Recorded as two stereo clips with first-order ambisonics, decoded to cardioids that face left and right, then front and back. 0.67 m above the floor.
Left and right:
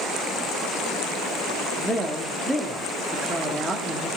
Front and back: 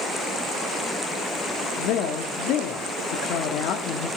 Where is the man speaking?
Straight ahead, 1.1 m.